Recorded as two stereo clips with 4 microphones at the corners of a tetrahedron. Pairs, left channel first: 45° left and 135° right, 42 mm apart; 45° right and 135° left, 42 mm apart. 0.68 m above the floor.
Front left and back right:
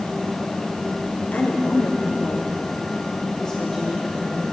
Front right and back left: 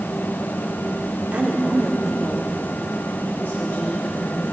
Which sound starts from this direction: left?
A woman speaking, at 1.3 s.